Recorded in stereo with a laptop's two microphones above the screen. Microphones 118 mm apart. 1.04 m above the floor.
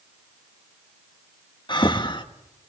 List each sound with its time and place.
1.7 s breathing: 40° left (ahead or behind), 1.5 m